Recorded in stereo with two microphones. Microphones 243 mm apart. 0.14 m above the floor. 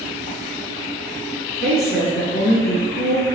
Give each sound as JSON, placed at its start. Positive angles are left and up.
{"t": 1.6, "sound": "a woman speaking", "side_deg": 10, "distance_m": 1.5}